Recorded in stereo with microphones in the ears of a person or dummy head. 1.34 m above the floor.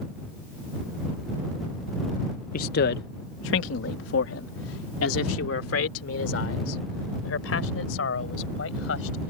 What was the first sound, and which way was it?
A man speaking, 45° left (ahead or behind).